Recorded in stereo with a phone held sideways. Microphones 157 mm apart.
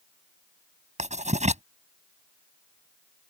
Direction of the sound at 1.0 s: 50° right (ahead or behind).